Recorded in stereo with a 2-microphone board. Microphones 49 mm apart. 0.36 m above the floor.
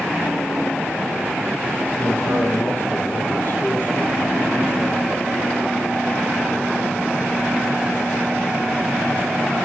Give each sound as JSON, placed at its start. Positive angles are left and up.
{"t": 2.0, "sound": "a man speaking", "side_deg": 40, "distance_m": 9.5}